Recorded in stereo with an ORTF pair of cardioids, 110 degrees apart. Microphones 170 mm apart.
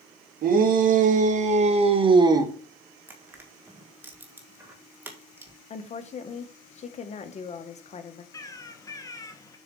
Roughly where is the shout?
Ahead right.